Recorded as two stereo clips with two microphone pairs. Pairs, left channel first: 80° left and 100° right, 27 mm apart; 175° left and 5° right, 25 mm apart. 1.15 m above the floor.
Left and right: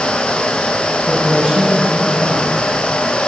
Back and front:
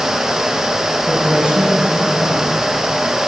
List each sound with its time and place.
1.1 s a man speaking: 55° right, 6.5 m